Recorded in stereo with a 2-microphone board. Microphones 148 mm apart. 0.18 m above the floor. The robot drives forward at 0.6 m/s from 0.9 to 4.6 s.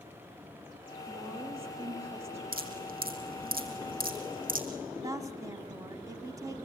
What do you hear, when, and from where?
1.1 s a woman speaking: 40° right (ahead or behind), 8.5 m; by 2.4 s 45° right (ahead or behind), 7.5 m
2.5 s dripping: 80° right, 3 m; by 4.7 s 70° right (ahead or behind), 3 m
5.0 s a woman speaking: 25° right (ahead or behind), 1.0 m